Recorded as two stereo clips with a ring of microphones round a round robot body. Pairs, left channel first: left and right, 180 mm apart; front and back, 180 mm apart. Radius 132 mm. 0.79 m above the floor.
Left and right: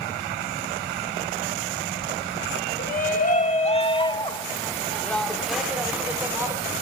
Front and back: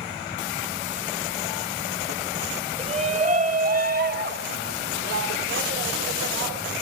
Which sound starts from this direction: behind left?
A shout, at 2.8 s.